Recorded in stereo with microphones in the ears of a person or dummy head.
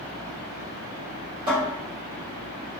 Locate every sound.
1.5 s a cupboard door: 60° right (ahead or behind), 1.9 m